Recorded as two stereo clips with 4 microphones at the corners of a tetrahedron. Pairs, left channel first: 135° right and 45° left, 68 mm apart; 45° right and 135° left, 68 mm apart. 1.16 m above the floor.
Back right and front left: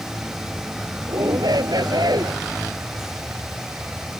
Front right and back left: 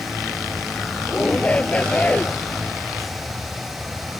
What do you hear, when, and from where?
1.1 s a shout: 25° left; by 2.4 s 30° left